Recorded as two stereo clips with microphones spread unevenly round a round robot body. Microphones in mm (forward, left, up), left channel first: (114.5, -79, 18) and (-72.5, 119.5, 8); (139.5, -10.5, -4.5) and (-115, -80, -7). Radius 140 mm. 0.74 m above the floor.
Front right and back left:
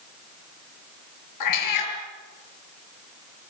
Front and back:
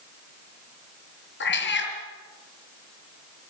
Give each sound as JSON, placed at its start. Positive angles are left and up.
{"t": 1.4, "sound": "a cat meowing", "azimuth_deg": -35, "distance_m": 6.5}